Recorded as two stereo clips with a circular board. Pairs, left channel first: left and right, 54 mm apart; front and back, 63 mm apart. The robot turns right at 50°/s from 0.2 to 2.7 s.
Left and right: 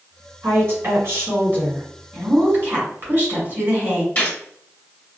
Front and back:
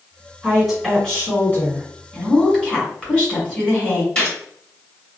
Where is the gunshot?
55° left, 1.8 m.